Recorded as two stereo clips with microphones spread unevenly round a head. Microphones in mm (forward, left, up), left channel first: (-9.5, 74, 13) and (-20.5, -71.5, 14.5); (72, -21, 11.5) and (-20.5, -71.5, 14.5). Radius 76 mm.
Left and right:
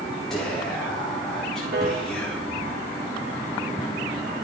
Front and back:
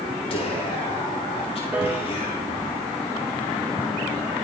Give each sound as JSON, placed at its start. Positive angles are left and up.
{"t": 0.3, "sound": "whispering", "azimuth_deg": 0, "distance_m": 3.5}
{"t": 1.7, "sound": "a piano", "azimuth_deg": -80, "distance_m": 2.5}